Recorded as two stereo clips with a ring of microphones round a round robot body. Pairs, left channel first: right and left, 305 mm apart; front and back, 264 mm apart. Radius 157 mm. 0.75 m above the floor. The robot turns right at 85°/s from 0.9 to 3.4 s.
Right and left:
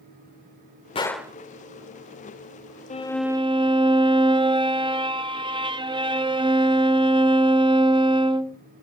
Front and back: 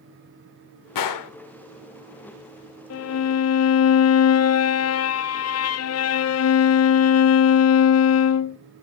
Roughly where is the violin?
Ahead right.